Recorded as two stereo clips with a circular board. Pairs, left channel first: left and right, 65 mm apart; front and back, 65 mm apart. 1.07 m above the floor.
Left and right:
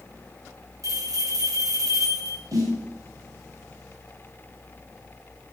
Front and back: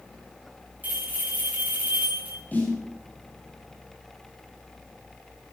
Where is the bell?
115° right, 4 m.